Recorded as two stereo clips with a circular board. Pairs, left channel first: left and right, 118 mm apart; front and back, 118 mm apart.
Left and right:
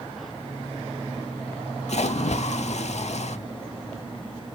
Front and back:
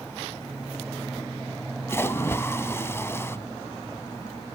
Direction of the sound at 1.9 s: 70° left.